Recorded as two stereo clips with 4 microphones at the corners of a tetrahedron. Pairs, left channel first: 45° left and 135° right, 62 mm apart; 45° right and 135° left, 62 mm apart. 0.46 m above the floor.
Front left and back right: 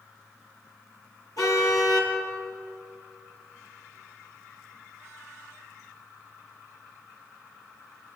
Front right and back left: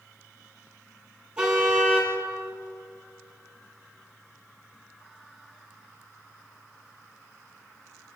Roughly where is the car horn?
Ahead left.